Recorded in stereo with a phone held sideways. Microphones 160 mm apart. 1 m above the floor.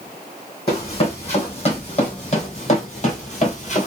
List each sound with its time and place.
0.7 s running footsteps: 35° left (ahead or behind), 2.5 m; by 3.9 s 45° left (ahead or behind), 1.4 m